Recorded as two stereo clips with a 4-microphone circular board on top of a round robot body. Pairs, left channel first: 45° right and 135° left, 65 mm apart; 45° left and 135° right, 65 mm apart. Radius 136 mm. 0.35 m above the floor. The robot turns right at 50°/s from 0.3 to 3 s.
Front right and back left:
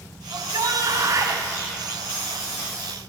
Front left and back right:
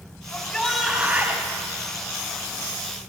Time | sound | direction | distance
0.3 | a shout | 115° left | 3 m